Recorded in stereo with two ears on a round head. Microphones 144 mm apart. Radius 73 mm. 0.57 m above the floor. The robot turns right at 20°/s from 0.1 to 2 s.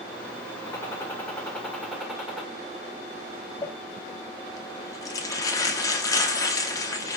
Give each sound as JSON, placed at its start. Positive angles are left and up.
{"t": 0.7, "sound": "a gunshot", "side_deg": 20, "distance_m": 1.4}
{"t": 3.6, "sound": "crumpling", "side_deg": 20, "distance_m": 1.0}